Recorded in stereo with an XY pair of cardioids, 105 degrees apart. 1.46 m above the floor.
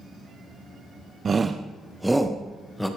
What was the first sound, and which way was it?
A shout, 40° right.